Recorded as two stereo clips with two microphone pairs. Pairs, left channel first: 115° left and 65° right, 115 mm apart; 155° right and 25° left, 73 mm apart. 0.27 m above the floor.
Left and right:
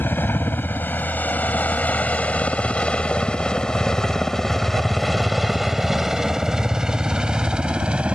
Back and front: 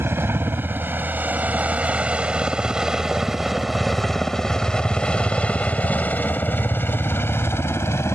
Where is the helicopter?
55° left; by 8.2 s 140° right.